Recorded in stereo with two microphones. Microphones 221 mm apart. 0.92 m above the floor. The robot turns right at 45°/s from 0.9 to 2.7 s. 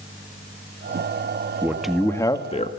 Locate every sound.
1.6 s a man speaking: 10° right, 1.6 m; by 2.7 s 35° left, 1.6 m